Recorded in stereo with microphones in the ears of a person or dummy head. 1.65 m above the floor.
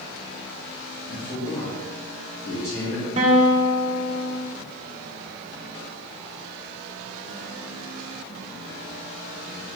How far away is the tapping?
No tapping in this recording.